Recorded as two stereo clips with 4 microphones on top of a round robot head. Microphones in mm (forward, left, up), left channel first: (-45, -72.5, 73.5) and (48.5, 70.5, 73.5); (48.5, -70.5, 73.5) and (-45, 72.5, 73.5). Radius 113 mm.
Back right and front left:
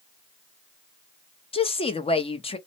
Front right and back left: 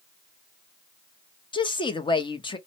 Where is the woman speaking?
100° right, 0.7 m.